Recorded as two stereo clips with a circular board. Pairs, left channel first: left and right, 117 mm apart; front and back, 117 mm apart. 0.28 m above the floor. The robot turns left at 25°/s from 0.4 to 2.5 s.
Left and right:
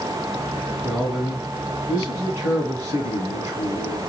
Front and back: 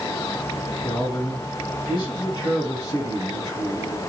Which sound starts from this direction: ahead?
A man speaking, at 0.8 s.